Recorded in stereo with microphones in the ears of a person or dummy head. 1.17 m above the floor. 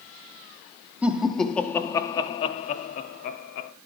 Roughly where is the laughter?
Centre.